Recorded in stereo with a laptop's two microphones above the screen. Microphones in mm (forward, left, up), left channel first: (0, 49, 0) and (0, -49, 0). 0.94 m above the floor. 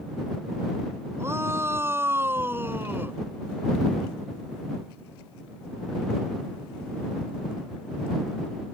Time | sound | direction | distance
1.2 | a shout | 25° right (ahead or behind) | ?